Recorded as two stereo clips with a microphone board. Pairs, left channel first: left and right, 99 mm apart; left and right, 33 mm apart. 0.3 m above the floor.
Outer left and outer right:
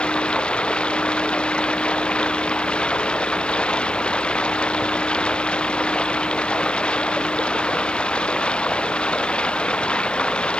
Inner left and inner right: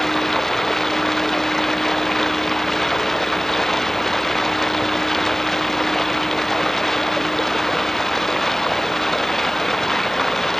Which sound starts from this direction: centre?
Running water, at 0.0 s.